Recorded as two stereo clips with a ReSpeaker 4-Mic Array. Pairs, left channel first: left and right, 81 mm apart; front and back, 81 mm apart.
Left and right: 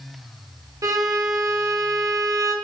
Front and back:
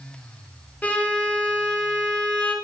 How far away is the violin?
About 0.5 m.